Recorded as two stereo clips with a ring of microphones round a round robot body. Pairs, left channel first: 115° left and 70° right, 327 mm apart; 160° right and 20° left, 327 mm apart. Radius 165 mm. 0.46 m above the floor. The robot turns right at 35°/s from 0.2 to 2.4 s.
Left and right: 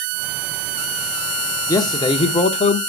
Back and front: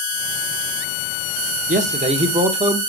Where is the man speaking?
45° left, 0.8 m; by 2.8 s 70° left, 0.8 m.